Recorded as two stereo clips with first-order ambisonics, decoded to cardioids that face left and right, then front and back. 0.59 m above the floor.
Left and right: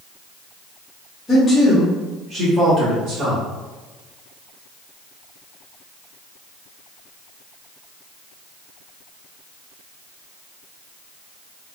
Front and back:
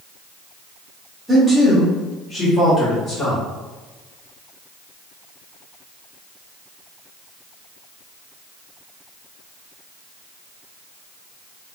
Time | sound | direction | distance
1.3 | a man speaking | 105° left | 1.0 m